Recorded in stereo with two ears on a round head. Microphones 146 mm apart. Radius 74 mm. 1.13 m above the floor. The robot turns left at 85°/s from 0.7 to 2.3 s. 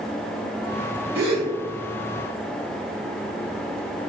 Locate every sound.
1.1 s a gasp: 65° right (ahead or behind), 1.1 m; by 1.5 s 55° right (ahead or behind), 1.1 m